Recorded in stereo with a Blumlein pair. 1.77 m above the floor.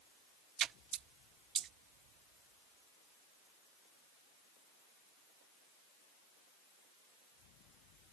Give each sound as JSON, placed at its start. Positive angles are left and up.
{"t": 0.6, "sound": "a splash", "azimuth_deg": -25}